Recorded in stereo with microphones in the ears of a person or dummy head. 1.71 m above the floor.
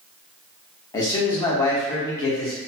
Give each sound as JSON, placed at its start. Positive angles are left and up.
{"t": 0.9, "sound": "a man speaking", "side_deg": 25, "distance_m": 0.7}